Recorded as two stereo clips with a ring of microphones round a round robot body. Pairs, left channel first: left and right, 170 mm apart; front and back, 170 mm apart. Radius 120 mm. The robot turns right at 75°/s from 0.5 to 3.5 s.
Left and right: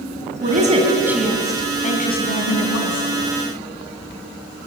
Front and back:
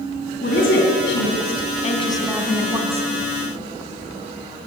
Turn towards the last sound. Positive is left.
turn(degrees=170)